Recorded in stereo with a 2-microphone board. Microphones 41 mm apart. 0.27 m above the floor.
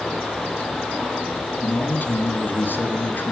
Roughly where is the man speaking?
Left.